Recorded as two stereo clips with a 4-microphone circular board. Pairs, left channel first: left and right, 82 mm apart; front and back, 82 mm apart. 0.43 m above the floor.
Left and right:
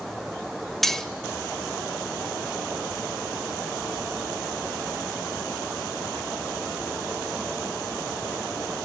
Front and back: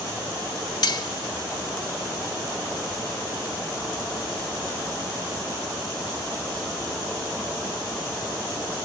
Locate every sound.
0.8 s cutlery clinking: 5° left, 0.8 m